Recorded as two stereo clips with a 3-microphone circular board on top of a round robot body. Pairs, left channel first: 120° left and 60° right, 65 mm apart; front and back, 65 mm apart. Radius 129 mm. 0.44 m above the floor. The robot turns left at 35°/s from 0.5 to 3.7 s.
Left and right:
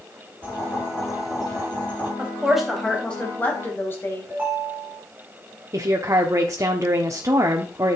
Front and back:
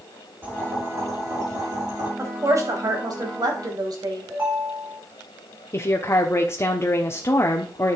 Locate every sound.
0.4 s boiling: 120° right, 4 m; by 2.1 s 175° right, 4 m
2.2 s a woman speaking: 130° right, 3 m; by 4.3 s 175° left, 3 m
4.3 s a ringtone: 130° right, 4 m
5.7 s a woman speaking: 35° right, 1.2 m